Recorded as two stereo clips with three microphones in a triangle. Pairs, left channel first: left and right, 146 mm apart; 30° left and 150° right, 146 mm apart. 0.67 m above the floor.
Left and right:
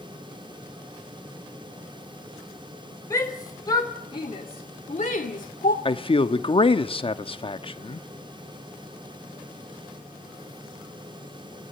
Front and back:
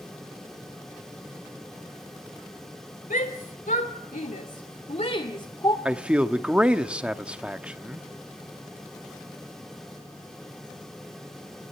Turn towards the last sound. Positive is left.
turn(degrees=130)